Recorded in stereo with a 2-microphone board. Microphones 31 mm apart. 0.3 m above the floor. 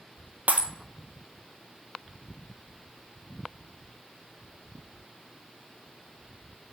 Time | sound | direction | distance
0.5 | breaking glass | 60° right (ahead or behind) | 1.0 m